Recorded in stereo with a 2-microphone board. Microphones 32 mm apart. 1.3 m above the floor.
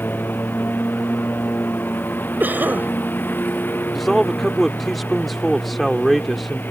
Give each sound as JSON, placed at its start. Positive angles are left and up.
{"t": 0.0, "sound": "a lawn mower", "side_deg": 80}
{"t": 2.4, "sound": "a cough", "side_deg": -70}
{"t": 4.0, "sound": "a man speaking", "side_deg": 0}